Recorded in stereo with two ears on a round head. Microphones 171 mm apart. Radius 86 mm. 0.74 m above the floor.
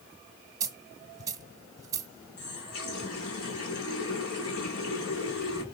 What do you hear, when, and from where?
0.6 s a dropped coin: 20° right (ahead or behind), 1.3 m
2.4 s a running tap: 85° left, 4.5 m